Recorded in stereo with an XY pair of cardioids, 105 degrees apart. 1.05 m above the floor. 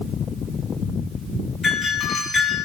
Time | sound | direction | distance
1.6 | a doorbell | 45° left | 7 m